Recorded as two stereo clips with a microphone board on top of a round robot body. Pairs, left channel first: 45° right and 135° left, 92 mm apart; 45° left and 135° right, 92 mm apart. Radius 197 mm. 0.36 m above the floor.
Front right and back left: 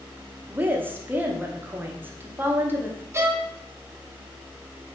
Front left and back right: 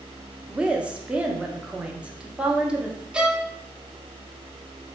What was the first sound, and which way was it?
A woman speaking, 165° left.